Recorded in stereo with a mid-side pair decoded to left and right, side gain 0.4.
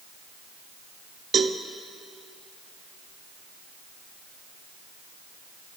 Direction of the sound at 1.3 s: 55° right.